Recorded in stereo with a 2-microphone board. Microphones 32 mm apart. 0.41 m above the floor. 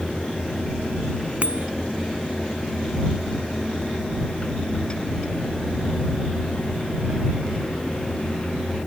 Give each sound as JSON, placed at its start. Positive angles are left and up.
{"t": 1.4, "sound": "a bicycle bell", "side_deg": -50}